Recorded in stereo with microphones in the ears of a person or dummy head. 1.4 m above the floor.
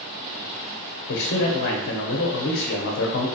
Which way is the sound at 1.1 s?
55° left (ahead or behind).